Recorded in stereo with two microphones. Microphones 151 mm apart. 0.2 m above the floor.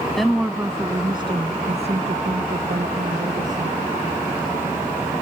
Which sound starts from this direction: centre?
A woman speaking, at 0.2 s.